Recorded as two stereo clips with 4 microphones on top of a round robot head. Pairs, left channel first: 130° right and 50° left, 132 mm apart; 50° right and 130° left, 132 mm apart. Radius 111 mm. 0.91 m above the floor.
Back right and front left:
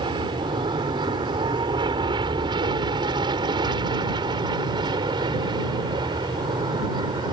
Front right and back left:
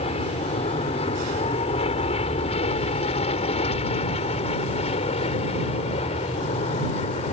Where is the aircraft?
5° right; by 7.3 s 10° right.